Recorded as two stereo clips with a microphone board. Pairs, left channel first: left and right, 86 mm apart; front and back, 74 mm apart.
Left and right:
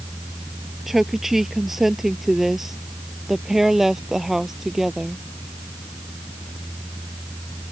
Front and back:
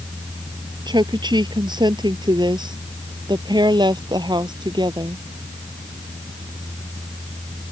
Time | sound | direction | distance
0.9 | a woman speaking | 175° right | ?